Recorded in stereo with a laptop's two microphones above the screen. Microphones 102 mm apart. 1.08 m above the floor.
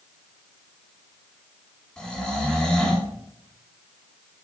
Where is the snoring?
5° left (ahead or behind), 1.8 m.